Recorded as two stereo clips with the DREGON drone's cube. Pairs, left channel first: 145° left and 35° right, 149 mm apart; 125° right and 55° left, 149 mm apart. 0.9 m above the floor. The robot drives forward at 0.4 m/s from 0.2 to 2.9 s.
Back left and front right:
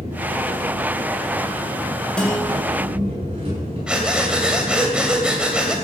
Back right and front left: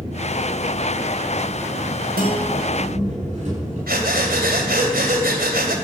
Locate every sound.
0.0 s an engine running: 15° left, 9.5 m
2.2 s a guitar: 60° left, 4.5 m
3.9 s breathing: 50° left, 2.5 m